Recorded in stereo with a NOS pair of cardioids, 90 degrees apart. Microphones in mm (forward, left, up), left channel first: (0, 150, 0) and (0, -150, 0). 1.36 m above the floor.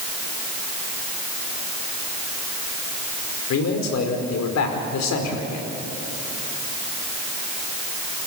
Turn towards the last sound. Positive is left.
turn(degrees=60)